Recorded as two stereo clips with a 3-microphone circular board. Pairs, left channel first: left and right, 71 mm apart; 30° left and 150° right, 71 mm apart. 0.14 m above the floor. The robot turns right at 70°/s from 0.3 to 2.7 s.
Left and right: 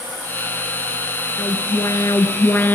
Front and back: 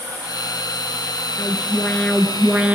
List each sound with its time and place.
1.4 s an alarm: 50° left, 2 m; by 2.8 s 145° left, 2 m